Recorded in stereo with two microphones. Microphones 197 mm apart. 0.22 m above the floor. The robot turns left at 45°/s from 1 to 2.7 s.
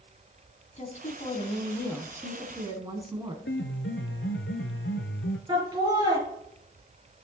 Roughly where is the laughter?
Centre.